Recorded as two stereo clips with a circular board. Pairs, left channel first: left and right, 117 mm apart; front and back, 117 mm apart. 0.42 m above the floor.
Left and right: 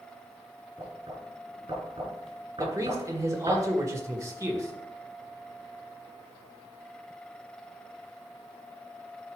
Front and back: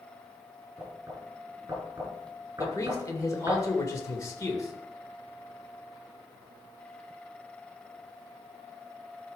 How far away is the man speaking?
About 1.7 m.